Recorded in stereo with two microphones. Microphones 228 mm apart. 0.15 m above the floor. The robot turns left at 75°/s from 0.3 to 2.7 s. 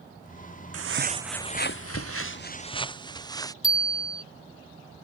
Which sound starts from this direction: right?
Footsteps, at 0.7 s.